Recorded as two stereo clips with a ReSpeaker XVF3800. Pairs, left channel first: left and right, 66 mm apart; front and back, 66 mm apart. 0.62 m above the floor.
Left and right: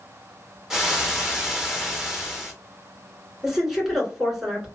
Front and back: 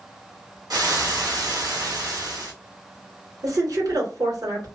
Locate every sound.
0.7 s frying: 170° right, 0.9 m
3.4 s a woman speaking: 170° right, 1.8 m